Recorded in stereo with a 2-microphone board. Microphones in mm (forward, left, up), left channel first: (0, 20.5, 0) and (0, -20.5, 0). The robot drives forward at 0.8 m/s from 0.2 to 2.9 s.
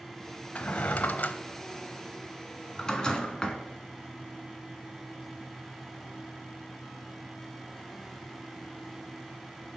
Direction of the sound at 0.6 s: 35° left (ahead or behind).